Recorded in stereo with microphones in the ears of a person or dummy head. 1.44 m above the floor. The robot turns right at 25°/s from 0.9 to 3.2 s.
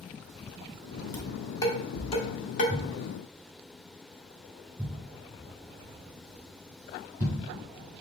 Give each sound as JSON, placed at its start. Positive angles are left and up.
{"t": 1.1, "sound": "dishes clattering", "side_deg": 15, "distance_m": 1.4}
{"t": 2.7, "sound": "a thud", "side_deg": -20, "distance_m": 1.8}